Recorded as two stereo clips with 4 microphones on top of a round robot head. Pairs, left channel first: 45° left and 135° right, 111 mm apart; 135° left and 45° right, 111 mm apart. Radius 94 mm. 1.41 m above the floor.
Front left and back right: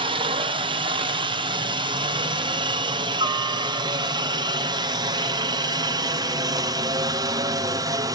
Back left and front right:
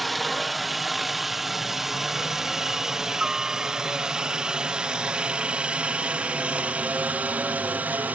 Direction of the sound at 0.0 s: 135° right.